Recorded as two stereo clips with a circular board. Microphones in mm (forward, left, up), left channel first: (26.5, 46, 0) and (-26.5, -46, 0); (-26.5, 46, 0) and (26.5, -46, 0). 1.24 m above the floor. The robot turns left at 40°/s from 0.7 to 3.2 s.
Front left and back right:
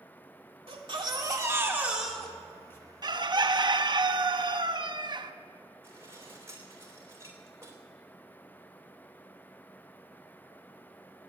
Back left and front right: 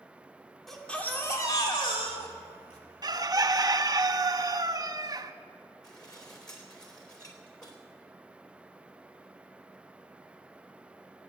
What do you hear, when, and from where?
0.7 s a baby crying: 150° right, 2 m; by 2.8 s 125° left, 2 m
3.0 s a bird: 90° right, 0.7 m; by 5.3 s 100° right, 0.7 m
5.8 s dishes clattering: 175° left, 3 m